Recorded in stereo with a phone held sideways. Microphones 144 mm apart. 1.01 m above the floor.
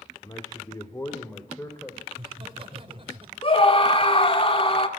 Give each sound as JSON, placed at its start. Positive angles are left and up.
{"t": 0.2, "sound": "a man speaking", "side_deg": 30, "distance_m": 2.0}
{"t": 2.1, "sound": "laughter", "side_deg": -40, "distance_m": 4.5}
{"t": 3.4, "sound": "a scream", "side_deg": 40, "distance_m": 2.5}